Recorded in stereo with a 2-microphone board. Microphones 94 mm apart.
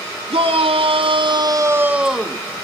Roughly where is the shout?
Right.